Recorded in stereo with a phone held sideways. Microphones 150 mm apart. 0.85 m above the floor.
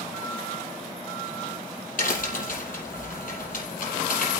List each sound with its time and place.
2.0 s a crack: 70° left (ahead or behind), 5.5 m